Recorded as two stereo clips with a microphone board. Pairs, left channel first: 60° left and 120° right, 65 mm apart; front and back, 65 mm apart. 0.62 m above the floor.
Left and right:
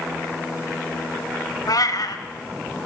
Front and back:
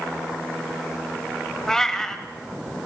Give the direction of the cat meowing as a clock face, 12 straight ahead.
9 o'clock.